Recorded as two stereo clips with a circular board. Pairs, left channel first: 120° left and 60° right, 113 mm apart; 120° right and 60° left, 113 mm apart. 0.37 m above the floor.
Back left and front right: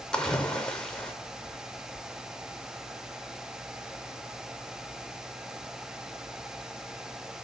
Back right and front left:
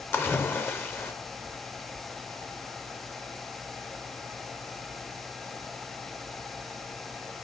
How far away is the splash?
About 0.7 m.